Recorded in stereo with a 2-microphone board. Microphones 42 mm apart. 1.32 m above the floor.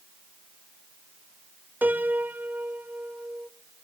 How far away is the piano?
About 0.7 m.